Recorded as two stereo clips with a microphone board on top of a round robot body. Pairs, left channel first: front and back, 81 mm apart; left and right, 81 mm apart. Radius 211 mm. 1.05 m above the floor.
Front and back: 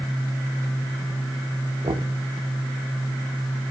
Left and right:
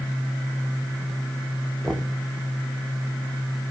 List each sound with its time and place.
1.8 s knocking: 175° left, 1.2 m